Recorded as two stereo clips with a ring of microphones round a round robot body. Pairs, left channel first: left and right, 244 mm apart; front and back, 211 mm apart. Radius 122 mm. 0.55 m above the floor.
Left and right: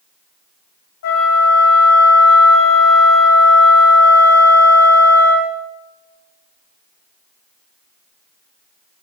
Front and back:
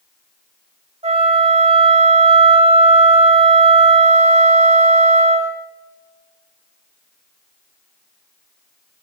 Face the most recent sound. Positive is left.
turn(degrees=120)